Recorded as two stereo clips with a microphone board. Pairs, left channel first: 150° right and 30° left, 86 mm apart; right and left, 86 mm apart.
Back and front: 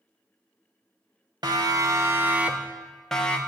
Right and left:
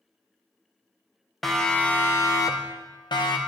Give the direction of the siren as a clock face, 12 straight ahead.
12 o'clock.